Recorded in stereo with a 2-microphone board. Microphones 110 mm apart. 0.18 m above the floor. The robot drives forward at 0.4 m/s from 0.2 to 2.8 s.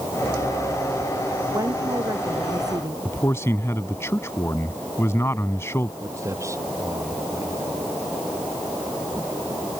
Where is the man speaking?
25° left (ahead or behind).